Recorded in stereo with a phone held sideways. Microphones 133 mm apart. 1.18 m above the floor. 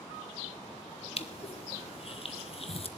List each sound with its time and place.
1.2 s crushing: 45° left (ahead or behind), 0.8 m